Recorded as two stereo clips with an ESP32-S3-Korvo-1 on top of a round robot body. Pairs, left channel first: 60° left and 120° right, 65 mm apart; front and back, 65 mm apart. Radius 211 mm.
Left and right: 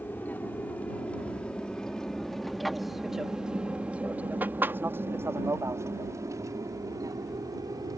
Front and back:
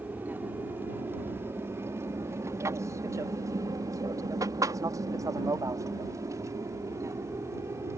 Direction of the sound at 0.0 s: 120° left.